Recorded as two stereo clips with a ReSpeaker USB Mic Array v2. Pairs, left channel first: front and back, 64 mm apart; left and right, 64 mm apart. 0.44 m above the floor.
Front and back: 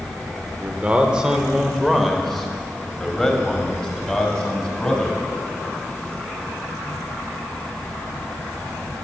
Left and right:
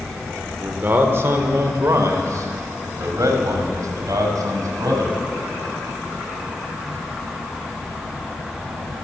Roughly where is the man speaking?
Behind right.